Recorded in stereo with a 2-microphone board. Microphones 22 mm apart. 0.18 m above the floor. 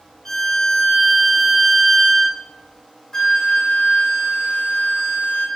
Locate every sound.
0.2 s a violin: 20° left (ahead or behind), 1.1 m
3.1 s a flute: 25° left (ahead or behind), 1.0 m